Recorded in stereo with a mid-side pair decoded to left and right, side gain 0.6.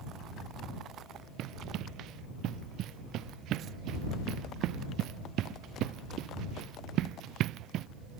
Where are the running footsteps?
60° right.